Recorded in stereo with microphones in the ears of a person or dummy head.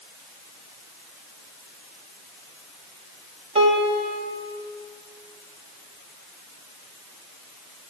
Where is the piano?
35° right (ahead or behind), 3.5 m.